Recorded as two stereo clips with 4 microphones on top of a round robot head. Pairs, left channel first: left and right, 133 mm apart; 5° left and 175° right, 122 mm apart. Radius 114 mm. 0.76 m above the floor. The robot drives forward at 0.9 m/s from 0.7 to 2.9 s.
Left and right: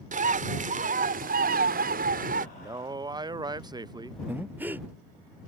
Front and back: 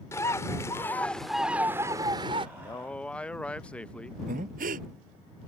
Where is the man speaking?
30° right; by 4.2 s 65° right.